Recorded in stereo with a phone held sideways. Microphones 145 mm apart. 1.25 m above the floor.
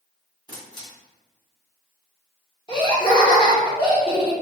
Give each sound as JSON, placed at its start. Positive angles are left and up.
{"t": 0.5, "sound": "a camera shutter", "side_deg": 30, "distance_m": 1.7}
{"t": 2.7, "sound": "laughter", "side_deg": 30, "distance_m": 1.5}